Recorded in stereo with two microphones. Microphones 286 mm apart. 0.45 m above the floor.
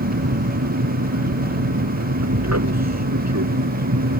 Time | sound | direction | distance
0.0 | an aircraft | 60° right (ahead or behind) | ?
2.2 | an explosion | 80° right | ?